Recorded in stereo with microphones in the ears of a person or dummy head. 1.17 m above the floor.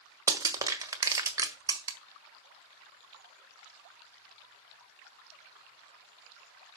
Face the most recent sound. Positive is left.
turn(degrees=-20)  # may be behind; listen again after turning